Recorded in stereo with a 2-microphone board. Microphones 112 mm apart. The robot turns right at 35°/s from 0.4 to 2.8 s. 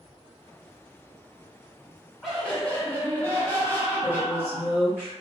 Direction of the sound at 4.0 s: 20° left (ahead or behind).